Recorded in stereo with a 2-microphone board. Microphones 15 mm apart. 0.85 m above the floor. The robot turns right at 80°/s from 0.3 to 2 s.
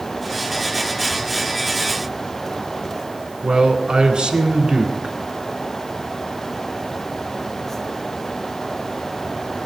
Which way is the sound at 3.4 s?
80° right.